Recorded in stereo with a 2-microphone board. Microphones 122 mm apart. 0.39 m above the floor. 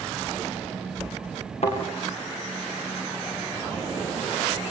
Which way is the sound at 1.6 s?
60° left (ahead or behind).